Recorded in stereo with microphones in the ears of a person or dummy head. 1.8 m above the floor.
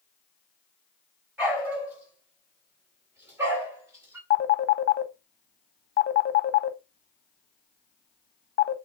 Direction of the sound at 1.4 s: 10° right (ahead or behind).